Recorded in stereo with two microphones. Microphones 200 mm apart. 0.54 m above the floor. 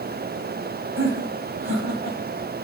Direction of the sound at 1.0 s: 65° right (ahead or behind).